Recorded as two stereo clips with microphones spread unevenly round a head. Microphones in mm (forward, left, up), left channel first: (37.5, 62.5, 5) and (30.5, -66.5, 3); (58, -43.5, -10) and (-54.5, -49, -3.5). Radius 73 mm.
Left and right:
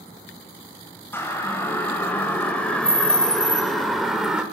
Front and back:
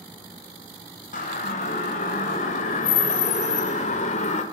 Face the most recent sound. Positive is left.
turn(degrees=-10)